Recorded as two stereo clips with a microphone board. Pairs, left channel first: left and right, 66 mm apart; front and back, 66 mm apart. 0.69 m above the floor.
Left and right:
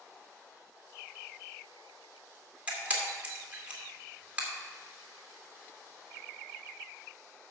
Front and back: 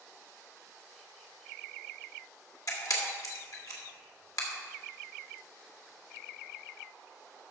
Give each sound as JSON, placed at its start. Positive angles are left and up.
{"t": 2.7, "sound": "a camera shutter", "azimuth_deg": -25, "distance_m": 2.0}